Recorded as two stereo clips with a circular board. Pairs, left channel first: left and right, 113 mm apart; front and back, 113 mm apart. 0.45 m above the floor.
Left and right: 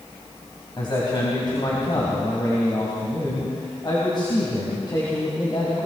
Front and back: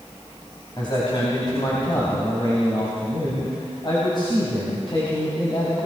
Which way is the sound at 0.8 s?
45° left.